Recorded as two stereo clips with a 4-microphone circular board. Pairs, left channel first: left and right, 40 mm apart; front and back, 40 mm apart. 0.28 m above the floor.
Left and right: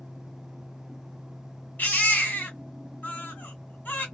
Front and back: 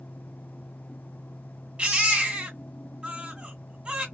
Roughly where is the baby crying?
Behind left.